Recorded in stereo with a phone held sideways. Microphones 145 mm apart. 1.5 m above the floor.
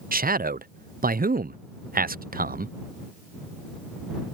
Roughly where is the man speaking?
Right.